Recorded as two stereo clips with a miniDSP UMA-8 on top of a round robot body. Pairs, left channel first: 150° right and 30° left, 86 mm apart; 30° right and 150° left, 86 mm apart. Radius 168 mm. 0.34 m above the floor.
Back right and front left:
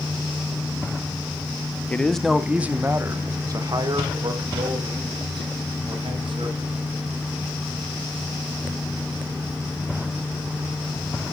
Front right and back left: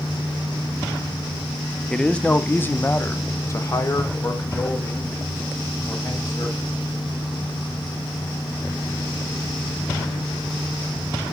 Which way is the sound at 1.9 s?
100° right.